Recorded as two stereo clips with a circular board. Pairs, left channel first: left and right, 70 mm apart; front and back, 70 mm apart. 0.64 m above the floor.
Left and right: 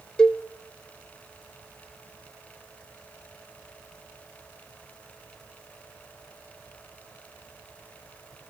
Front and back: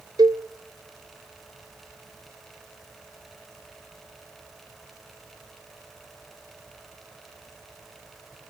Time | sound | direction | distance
0.2 | a cowbell | 170° left | 0.8 m